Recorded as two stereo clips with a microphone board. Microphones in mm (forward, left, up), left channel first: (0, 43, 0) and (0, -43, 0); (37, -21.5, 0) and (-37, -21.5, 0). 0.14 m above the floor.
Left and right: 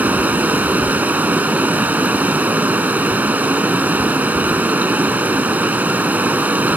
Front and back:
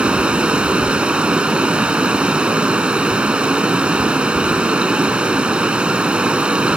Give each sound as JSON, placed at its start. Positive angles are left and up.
{"t": 0.0, "sound": "running water", "azimuth_deg": -125, "distance_m": 1.2}